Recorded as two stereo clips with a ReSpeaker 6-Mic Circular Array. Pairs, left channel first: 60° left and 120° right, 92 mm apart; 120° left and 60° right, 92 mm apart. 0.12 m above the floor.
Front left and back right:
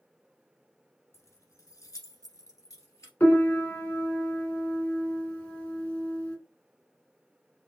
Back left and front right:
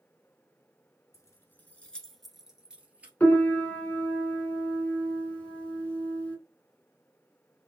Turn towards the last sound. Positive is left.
turn(degrees=85)